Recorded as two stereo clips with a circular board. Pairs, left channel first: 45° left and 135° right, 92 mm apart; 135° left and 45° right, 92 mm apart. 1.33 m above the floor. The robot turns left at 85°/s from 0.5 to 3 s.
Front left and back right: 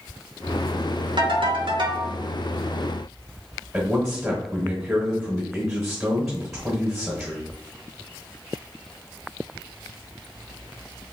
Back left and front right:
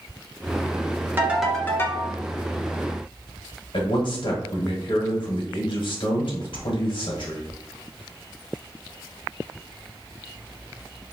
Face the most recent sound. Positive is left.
turn(degrees=135)